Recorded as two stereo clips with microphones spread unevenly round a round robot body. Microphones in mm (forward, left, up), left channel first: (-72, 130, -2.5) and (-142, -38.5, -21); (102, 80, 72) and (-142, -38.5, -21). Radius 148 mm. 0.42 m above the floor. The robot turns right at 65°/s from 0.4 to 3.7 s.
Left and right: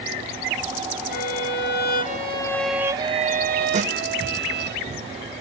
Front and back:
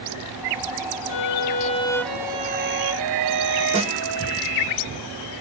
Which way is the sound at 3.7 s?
125° right.